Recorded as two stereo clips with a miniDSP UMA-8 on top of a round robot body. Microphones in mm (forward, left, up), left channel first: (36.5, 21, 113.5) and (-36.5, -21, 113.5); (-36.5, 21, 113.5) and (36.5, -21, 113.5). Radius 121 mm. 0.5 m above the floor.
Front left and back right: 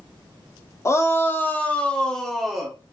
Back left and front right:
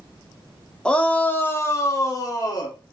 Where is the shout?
75° left, 1.2 m; by 2.8 s 120° left, 1.6 m.